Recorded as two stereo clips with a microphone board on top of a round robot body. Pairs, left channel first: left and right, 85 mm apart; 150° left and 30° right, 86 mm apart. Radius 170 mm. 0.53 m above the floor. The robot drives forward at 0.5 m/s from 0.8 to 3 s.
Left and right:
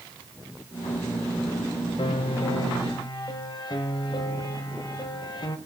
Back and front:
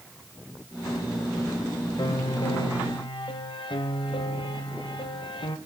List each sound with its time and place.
2.0 s a piano: 110° left, 1.4 m; by 5.6 s 125° left, 1.6 m